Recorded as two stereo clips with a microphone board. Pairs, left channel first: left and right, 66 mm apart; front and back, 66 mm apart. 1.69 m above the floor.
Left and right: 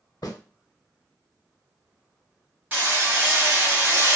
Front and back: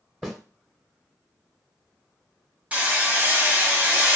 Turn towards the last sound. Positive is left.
turn(degrees=-125)